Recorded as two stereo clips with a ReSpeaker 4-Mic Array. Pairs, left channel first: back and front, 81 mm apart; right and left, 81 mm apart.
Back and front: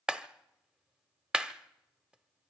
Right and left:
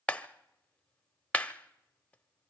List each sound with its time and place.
0.1 s a clap: 60° right, 0.7 m